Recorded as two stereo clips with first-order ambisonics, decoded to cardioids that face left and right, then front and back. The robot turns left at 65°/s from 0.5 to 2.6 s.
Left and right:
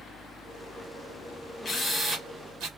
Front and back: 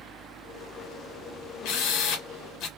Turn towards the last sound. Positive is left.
turn(degrees=-45)